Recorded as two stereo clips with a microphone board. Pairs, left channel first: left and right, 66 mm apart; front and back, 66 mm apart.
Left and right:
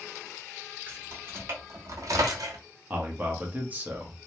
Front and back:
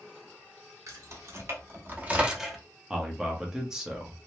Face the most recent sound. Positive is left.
turn(degrees=-110)